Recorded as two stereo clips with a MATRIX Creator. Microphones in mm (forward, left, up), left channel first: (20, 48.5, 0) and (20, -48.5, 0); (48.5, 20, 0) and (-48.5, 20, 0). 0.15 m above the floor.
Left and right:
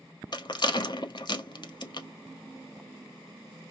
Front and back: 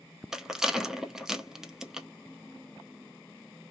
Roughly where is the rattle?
Left.